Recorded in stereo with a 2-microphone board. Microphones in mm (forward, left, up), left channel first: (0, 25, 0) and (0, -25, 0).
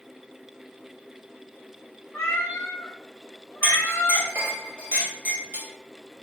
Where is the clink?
40° right (ahead or behind), 1.7 m.